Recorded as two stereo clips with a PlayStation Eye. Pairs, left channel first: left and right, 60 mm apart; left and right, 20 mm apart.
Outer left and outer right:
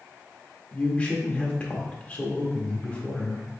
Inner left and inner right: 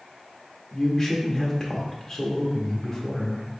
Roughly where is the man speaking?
Left.